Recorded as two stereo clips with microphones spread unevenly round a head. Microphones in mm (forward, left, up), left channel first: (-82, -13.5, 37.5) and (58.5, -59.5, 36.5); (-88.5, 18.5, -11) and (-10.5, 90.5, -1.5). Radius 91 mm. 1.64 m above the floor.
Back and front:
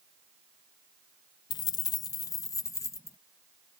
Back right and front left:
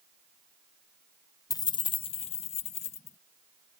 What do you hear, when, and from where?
1.5 s keys jangling: 165° right; by 3.2 s 130° right